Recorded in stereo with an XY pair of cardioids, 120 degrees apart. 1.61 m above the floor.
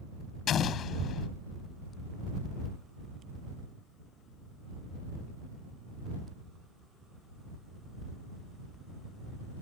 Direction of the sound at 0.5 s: 55° left.